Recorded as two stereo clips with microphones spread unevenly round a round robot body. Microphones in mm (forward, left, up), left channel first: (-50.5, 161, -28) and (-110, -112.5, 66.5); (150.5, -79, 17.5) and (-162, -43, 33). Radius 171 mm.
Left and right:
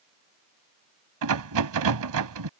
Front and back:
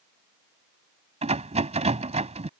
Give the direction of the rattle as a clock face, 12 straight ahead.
4 o'clock.